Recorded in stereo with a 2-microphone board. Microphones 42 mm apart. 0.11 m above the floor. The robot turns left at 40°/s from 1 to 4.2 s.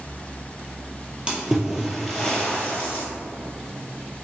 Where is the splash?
20° right (ahead or behind), 1.2 m; by 3.0 s 40° left (ahead or behind), 1.2 m.